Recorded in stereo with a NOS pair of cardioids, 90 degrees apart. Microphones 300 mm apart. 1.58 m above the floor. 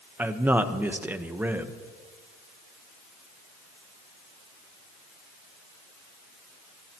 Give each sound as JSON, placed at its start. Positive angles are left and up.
{"t": 0.2, "sound": "a man speaking", "azimuth_deg": -5, "distance_m": 1.1}